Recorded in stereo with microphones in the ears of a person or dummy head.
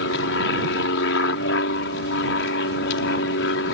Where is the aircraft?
70° left (ahead or behind).